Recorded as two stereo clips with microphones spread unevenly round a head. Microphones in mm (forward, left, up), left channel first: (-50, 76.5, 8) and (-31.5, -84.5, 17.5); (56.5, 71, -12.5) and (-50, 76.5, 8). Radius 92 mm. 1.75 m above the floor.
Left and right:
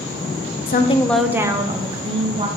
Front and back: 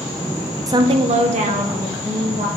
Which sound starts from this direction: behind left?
A woman speaking, at 0.7 s.